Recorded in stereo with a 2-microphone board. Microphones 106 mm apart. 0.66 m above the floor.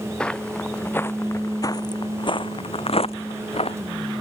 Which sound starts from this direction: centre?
Footsteps, at 0.2 s.